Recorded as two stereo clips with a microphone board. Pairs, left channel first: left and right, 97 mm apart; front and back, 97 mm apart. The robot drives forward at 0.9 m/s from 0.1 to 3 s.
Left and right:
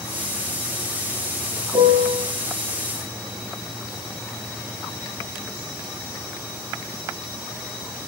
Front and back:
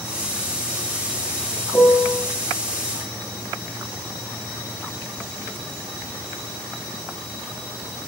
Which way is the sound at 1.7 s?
95° right.